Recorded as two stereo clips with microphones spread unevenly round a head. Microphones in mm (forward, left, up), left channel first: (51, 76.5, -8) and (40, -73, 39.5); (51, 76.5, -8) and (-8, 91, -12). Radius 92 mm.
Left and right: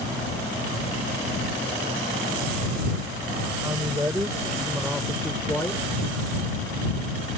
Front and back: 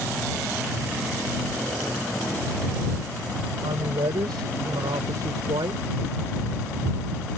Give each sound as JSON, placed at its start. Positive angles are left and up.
{"t": 3.6, "sound": "a woman speaking", "azimuth_deg": -170}